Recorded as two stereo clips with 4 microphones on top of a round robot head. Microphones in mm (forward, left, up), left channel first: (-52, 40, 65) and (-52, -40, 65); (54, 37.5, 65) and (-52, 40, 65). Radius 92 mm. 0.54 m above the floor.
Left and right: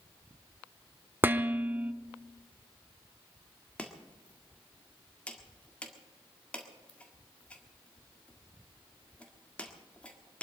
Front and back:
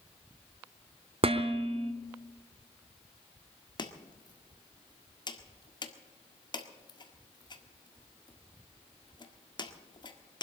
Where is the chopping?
20° left, 1.7 m.